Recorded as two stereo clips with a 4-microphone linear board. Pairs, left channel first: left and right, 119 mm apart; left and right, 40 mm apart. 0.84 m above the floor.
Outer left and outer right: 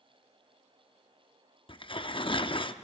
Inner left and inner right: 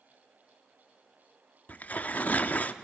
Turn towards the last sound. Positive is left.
turn(degrees=45)  # may be behind; listen again after turning